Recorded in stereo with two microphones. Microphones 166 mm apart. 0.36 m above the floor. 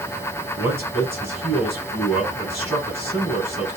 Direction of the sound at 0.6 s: 15° right (ahead or behind).